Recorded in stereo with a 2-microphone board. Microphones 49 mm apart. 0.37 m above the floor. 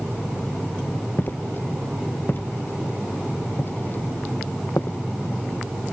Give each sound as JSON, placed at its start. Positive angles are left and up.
{"t": 1.2, "sound": "footsteps", "side_deg": 45}